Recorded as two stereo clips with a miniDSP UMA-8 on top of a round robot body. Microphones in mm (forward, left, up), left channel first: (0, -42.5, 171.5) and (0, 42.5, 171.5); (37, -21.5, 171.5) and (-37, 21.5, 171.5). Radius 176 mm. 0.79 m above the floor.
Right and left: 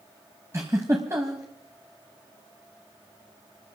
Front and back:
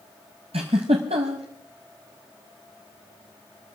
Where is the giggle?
150° left, 0.7 m.